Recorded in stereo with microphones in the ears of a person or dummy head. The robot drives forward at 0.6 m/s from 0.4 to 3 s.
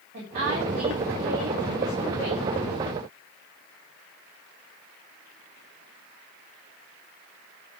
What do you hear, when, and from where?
0.1 s a woman speaking: 40° right (ahead or behind), 4 m; by 2.5 s 30° right (ahead or behind), 5 m